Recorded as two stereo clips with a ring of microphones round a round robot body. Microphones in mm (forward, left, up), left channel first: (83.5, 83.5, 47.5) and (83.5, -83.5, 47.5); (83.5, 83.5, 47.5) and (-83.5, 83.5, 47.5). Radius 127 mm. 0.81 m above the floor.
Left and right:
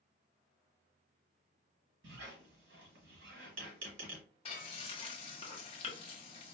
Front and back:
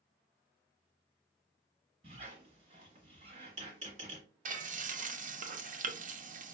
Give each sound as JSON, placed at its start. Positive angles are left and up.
{"t": 2.0, "sound": "a squeak", "azimuth_deg": -115, "distance_m": 1.3}
{"t": 4.5, "sound": "frying", "azimuth_deg": 145, "distance_m": 0.6}